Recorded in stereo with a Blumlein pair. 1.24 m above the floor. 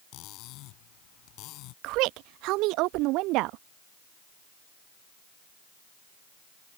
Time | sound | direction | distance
0.1 | cutlery clinking | 40° left | ?
1.8 | a woman speaking | 40° right | ?